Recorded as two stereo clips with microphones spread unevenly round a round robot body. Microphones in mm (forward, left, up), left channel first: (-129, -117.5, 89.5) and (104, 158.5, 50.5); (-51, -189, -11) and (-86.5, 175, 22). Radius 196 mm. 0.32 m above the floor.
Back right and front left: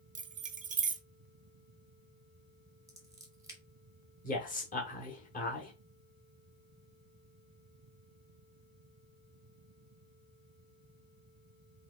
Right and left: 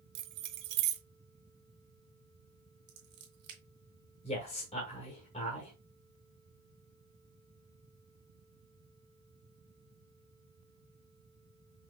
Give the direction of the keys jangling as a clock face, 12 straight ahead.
9 o'clock.